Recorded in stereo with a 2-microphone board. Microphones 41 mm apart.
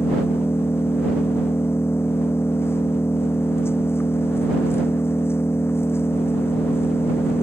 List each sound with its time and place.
0.0 s an engine running: 80° left